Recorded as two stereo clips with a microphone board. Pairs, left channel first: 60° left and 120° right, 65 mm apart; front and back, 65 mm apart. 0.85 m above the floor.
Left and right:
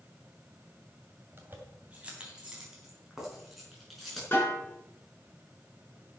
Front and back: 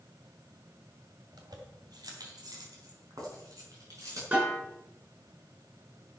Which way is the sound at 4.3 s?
120° left.